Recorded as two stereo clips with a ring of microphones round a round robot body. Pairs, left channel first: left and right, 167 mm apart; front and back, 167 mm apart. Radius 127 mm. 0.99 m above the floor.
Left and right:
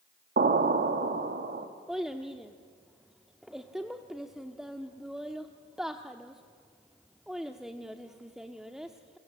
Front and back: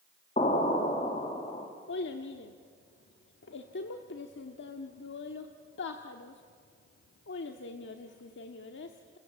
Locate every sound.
0.4 s an explosion: 65° right, 1.9 m
1.9 s a child speaking: straight ahead, 1.1 m